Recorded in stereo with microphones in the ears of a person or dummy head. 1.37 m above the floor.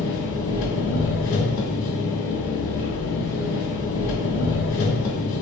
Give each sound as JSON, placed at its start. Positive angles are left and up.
{"t": 0.0, "sound": "an engine running", "side_deg": 70, "distance_m": 1.7}